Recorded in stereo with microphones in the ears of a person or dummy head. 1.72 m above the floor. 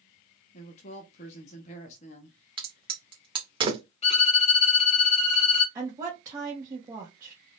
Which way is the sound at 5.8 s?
20° right (ahead or behind).